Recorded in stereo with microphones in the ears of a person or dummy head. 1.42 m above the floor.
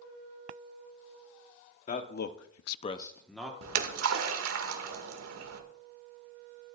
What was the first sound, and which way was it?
A man speaking, 45° left (ahead or behind).